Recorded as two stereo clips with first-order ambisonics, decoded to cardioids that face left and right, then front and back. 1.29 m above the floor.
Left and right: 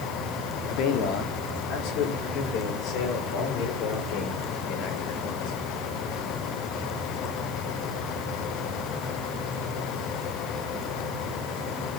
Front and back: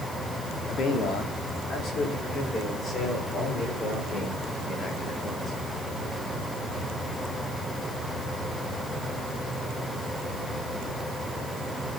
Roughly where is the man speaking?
Ahead left.